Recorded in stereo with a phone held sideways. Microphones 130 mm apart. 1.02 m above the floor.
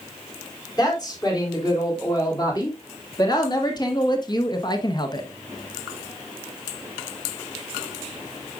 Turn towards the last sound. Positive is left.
turn(degrees=35)  # may be behind; listen again after turning